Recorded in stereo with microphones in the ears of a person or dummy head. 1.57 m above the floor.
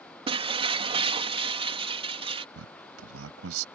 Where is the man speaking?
70° right (ahead or behind).